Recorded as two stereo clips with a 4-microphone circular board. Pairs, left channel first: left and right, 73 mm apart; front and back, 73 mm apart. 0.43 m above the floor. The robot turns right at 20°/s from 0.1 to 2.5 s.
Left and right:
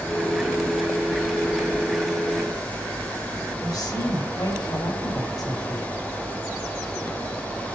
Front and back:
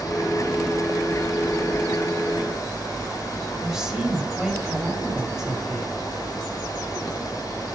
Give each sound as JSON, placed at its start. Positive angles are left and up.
{"t": 3.6, "sound": "a woman speaking", "azimuth_deg": 100, "distance_m": 2.5}